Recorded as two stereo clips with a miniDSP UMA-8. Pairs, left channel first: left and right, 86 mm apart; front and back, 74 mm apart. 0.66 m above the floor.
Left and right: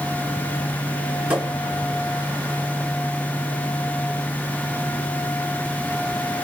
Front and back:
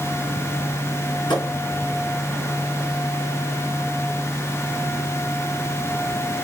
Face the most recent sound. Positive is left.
turn(degrees=-15)